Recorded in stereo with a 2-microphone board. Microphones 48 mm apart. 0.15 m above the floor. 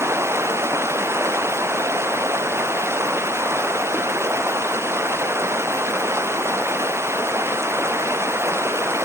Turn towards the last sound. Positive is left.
turn(degrees=-65)  # may be behind; listen again after turning